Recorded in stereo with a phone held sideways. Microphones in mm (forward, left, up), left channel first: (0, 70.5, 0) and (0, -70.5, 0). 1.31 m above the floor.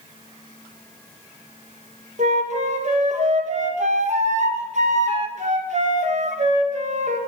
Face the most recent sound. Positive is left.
turn(degrees=-55)  # may be behind; listen again after turning